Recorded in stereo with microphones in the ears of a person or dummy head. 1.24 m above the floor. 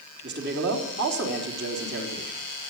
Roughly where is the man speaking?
Right.